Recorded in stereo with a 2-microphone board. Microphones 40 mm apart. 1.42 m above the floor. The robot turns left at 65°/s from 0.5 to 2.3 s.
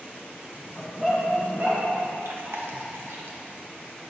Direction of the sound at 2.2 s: 75° right (ahead or behind).